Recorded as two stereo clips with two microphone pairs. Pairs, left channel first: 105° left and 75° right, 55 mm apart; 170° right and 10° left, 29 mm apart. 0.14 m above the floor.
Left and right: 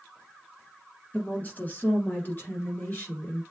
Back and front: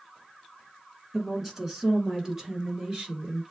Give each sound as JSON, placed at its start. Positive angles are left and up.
{"t": 1.1, "sound": "a woman speaking", "azimuth_deg": 90, "distance_m": 1.4}